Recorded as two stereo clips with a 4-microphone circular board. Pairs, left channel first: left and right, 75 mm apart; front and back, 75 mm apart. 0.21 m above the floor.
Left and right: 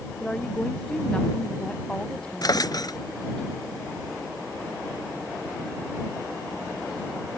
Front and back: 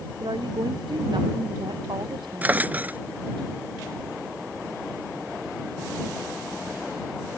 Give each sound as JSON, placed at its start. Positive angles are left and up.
{"t": 0.2, "sound": "a woman speaking", "azimuth_deg": 170}
{"t": 2.4, "sound": "a drawer", "azimuth_deg": 115}